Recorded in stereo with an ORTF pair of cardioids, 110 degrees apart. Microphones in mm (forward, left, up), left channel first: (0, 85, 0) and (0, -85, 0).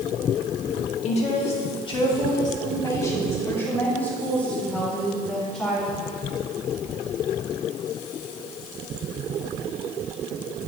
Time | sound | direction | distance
1.0 | a woman speaking | 40° left | 2 m